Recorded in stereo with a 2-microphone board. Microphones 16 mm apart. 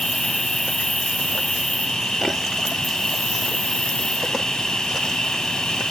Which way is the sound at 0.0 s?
70° left (ahead or behind).